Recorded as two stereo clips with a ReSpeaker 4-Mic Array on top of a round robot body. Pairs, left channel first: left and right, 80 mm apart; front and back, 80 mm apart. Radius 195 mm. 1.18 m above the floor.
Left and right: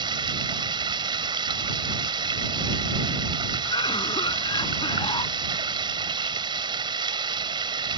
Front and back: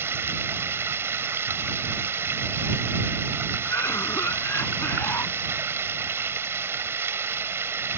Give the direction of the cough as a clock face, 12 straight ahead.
10 o'clock.